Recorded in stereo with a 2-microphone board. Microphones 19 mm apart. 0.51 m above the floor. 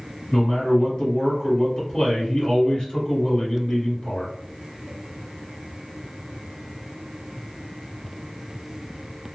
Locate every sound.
0.3 s a man speaking: 60° left (ahead or behind), 1.7 m